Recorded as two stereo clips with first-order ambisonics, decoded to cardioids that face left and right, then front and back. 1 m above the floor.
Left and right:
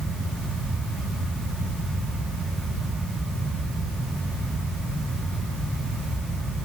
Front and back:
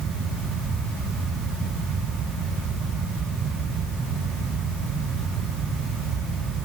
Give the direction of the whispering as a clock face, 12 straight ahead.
I don't hear whispering.